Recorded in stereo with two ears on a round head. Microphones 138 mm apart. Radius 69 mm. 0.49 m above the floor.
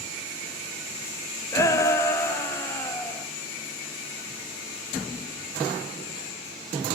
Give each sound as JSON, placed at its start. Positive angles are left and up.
{"t": 1.5, "sound": "a shout", "side_deg": 20, "distance_m": 2.0}